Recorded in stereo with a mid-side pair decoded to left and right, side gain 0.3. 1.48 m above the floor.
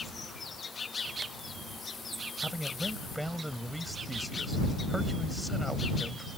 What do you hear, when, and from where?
2.4 s a man speaking: 5° right